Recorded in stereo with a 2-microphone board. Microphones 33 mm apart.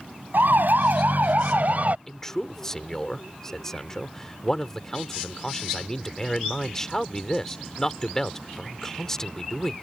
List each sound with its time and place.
0.3 s a siren: 75° right (ahead or behind); by 2.0 s 50° right (ahead or behind)
2.1 s a man speaking: 15° left (ahead or behind)